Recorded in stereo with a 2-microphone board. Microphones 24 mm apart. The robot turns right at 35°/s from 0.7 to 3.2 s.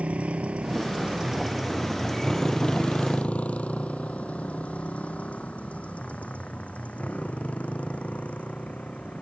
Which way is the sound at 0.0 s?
80° right.